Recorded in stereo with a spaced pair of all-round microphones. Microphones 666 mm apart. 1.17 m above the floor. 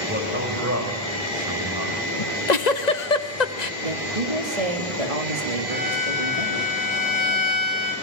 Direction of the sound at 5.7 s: 40° left (ahead or behind).